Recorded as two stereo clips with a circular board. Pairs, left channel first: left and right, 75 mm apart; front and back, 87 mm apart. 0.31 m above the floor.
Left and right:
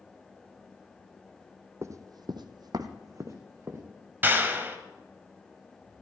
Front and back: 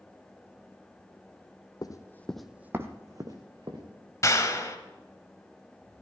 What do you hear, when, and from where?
1.8 s running footsteps: 40° right, 1.0 m; by 3.8 s 145° right, 2 m
4.2 s a clap: 35° right, 1.5 m